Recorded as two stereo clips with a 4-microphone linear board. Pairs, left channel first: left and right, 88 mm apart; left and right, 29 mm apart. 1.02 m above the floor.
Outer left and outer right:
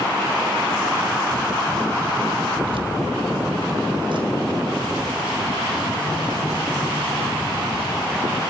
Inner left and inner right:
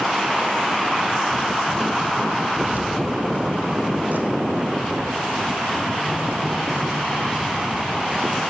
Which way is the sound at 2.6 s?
75° right (ahead or behind).